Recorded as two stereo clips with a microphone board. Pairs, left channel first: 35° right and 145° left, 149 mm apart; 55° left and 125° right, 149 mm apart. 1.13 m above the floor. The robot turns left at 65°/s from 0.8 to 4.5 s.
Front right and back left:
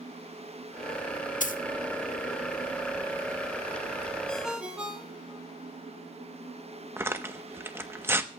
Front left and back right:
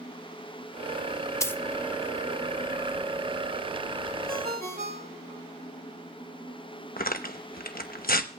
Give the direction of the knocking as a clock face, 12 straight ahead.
I don't hear knocking.